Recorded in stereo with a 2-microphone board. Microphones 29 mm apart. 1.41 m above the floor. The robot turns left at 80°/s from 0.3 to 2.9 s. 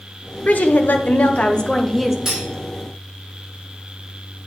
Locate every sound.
0.5 s a woman speaking: 125° left, 1.0 m; by 2.1 s 10° right, 1.0 m
2.2 s cutlery clinking: 20° right (ahead or behind), 2.5 m; by 2.5 s 40° right (ahead or behind), 2.5 m